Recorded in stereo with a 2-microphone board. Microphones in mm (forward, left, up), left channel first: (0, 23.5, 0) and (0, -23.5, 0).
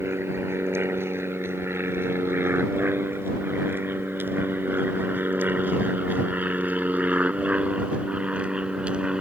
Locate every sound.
0.0 s an aircraft: 65° right (ahead or behind); by 9.2 s 20° right (ahead or behind)